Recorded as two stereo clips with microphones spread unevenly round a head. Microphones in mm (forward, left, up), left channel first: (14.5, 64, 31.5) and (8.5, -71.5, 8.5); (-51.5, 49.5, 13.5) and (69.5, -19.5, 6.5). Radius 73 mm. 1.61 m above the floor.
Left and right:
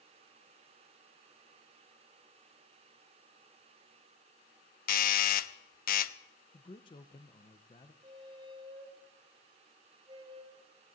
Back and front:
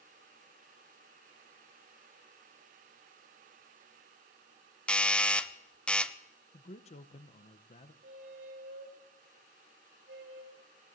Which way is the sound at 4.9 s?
65° left.